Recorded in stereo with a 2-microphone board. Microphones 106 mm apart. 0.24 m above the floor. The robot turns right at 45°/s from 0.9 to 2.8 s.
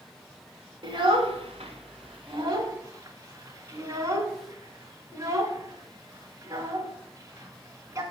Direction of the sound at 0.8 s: 55° right (ahead or behind).